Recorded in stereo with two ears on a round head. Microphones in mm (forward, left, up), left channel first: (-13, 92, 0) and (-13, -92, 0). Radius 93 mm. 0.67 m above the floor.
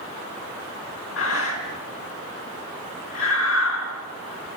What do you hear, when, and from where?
1.2 s breathing: 70° left (ahead or behind), 4.5 m